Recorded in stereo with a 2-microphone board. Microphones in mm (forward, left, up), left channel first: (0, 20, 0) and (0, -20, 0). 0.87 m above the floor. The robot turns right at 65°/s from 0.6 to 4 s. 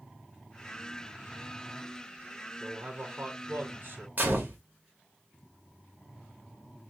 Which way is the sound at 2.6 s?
150° right.